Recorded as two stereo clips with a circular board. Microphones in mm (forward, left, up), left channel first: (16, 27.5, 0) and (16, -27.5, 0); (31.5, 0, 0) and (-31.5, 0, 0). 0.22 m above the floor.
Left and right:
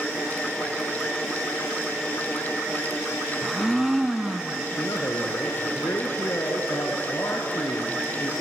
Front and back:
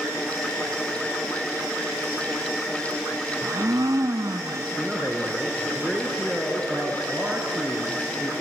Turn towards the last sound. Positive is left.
turn(degrees=100)